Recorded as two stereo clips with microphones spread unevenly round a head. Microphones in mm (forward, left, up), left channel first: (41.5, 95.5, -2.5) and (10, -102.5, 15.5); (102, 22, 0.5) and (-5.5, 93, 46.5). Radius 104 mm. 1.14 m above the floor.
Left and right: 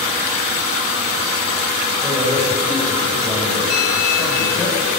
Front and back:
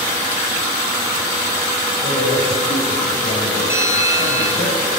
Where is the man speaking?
15° right, 6 m; by 4.7 s straight ahead, 7 m.